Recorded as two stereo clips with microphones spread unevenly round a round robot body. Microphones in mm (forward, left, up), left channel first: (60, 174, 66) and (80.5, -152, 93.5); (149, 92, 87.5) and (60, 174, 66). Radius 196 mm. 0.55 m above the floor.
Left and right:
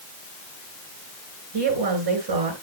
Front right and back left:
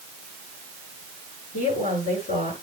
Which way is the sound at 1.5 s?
75° right.